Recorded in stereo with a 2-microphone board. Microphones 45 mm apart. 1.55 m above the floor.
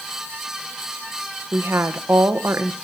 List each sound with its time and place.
1.5 s a woman speaking: 75° right (ahead or behind), 1.2 m